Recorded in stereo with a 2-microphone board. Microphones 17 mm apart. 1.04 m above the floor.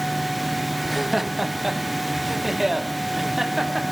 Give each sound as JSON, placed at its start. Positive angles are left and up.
{"t": 0.8, "sound": "laughter", "side_deg": -5, "distance_m": 1.1}